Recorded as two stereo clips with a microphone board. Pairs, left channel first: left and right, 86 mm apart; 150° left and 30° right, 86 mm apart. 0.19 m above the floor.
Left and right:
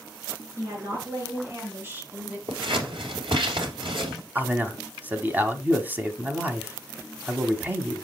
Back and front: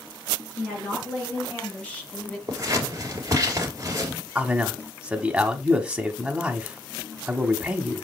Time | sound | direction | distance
0.6 | a woman speaking | 140° right | 3.5 m
2.5 | scissors | 85° right | 2.5 m
4.3 | a man speaking | 90° right | 1.0 m